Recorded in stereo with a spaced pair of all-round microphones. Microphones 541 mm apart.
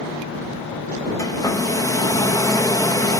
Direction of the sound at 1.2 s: 5° left (ahead or behind).